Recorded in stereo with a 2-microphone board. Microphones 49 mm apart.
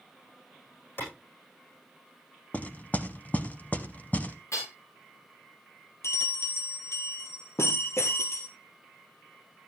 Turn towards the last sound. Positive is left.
turn(degrees=65)  # may be behind; listen again after turning